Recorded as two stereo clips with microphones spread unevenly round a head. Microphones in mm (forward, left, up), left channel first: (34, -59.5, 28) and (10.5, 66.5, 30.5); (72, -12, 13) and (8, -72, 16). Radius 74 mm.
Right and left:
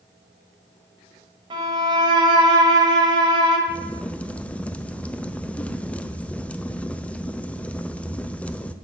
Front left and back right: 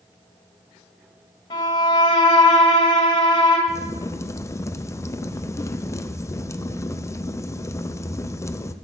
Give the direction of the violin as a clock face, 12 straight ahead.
10 o'clock.